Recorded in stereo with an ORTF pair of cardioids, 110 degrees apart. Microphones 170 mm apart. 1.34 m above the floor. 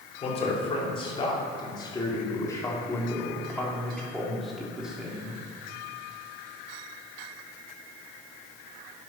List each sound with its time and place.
0.2 s a man speaking: 35° left, 4 m; by 5.4 s 10° right, 3.5 m